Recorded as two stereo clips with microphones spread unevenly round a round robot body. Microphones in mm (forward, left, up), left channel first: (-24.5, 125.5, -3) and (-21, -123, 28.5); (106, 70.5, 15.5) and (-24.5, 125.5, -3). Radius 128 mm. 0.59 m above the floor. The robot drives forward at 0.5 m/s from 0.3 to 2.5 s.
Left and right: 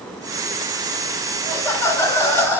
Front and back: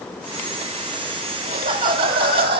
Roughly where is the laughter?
Behind.